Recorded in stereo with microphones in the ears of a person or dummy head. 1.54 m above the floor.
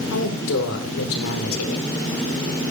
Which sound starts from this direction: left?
A woman speaking, at 0.1 s.